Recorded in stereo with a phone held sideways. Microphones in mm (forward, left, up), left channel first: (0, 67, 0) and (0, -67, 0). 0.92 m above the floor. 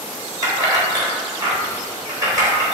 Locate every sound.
0.4 s keys jangling: 25° right (ahead or behind), 3.5 m